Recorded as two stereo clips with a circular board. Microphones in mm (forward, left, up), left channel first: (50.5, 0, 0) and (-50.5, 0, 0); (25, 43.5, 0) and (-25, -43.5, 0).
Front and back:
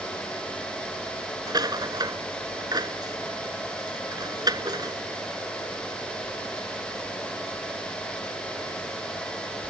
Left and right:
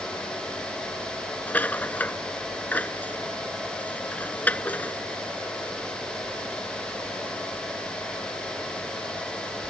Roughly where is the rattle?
Behind left.